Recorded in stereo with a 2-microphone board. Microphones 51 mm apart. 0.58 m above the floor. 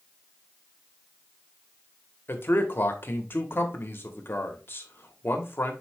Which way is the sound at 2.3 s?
45° left (ahead or behind).